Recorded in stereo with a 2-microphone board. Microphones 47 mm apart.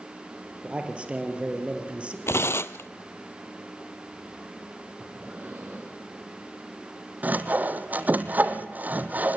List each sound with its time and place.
0.6 s a man speaking: 25° right (ahead or behind), 2.5 m
2.3 s tearing paper: 65° left (ahead or behind), 0.6 m
5.0 s breathing: 40° right (ahead or behind), 6 m
7.2 s sawing: 40° right (ahead or behind), 1.1 m